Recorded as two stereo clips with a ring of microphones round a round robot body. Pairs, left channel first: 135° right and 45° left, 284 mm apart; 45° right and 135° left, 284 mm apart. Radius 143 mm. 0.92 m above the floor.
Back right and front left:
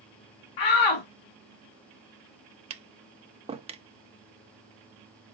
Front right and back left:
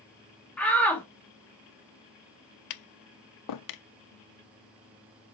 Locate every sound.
0.6 s a shout: 130° right, 1.7 m
2.7 s tapping: 25° right, 0.7 m